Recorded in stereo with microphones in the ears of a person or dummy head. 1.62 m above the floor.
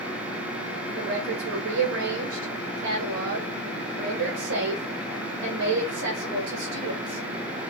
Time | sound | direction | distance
1.0 | a woman speaking | 65° right (ahead or behind) | 1.8 m